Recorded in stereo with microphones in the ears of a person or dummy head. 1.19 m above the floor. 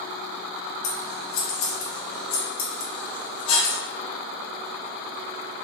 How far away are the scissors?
About 1.1 m.